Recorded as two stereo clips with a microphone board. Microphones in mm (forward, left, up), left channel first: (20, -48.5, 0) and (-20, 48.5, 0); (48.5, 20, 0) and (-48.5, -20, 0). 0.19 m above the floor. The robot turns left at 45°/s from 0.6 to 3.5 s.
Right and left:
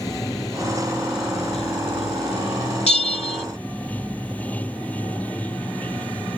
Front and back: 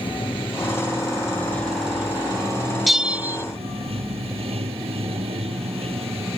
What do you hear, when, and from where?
0.0 s running water: 15° right; by 6.4 s 145° right
2.9 s a bell: 65° right; by 3.4 s 95° right